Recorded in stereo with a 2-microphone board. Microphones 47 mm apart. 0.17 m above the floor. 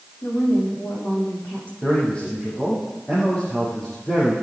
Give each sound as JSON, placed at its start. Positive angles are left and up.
{"t": 0.2, "sound": "a woman speaking", "side_deg": 30, "distance_m": 8.0}
{"t": 1.8, "sound": "a man speaking", "side_deg": 20, "distance_m": 7.0}